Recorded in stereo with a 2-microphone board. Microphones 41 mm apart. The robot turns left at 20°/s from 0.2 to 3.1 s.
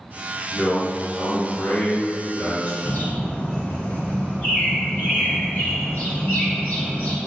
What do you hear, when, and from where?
0.5 s a man speaking: 145° left, 1.4 m; by 2.8 s 100° left, 1.4 m
2.9 s a bird: 40° left (ahead or behind), 1.8 m